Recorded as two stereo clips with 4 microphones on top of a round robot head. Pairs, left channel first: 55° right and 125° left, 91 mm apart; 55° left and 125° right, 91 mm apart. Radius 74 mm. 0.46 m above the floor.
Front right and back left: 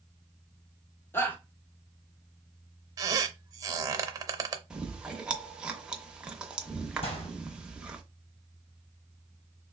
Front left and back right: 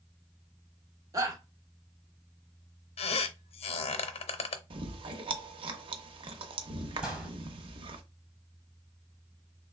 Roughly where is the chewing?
Behind right.